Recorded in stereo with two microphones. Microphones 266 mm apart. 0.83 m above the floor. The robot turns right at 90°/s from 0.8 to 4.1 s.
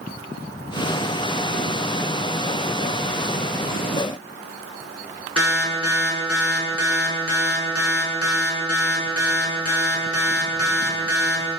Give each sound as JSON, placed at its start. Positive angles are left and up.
{"t": 5.4, "sound": "an alarm", "side_deg": 65, "distance_m": 3.0}